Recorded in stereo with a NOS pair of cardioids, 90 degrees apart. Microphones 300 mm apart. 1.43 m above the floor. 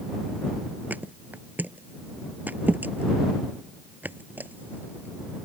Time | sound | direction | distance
0.9 | a thud | 5° right | ?